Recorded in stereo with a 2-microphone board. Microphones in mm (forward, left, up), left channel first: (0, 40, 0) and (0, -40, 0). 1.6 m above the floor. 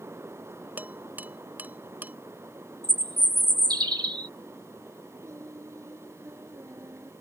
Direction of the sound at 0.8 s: 25° right (ahead or behind).